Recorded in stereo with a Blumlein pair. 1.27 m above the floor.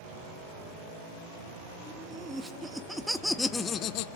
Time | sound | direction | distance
1.9 | laughter | 15° right | 2.5 m